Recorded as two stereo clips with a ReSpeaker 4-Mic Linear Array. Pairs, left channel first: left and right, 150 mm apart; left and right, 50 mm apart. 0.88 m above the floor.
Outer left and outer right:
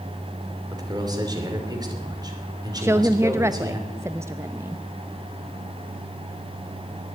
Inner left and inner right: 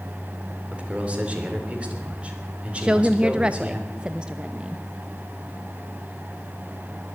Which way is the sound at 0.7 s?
25° right (ahead or behind).